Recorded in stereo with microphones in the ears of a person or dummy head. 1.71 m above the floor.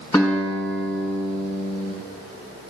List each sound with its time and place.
0.1 s a guitar: 20° left (ahead or behind), 6 m